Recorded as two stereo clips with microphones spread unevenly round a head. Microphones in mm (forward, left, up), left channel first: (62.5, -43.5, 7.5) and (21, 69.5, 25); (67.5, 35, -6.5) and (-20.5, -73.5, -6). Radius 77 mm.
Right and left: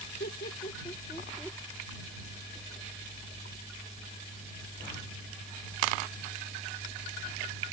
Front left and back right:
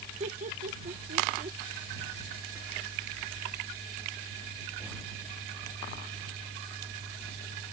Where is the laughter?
90° right; by 1.6 s 170° right.